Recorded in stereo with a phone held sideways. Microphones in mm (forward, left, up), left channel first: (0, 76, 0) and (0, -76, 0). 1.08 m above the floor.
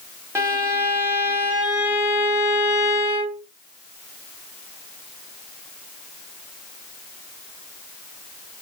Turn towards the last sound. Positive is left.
turn(degrees=-15)  # may be behind; listen again after turning